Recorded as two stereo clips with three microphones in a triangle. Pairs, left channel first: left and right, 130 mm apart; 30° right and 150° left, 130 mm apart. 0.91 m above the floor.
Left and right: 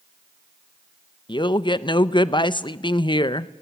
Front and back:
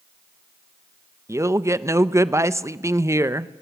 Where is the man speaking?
100° left, 0.6 m.